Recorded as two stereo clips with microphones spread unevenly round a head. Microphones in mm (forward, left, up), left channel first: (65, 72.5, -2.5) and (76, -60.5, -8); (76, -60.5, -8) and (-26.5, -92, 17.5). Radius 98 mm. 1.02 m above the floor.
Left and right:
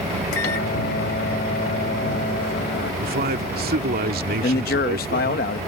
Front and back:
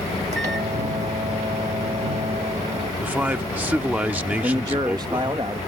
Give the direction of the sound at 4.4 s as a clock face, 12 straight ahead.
8 o'clock.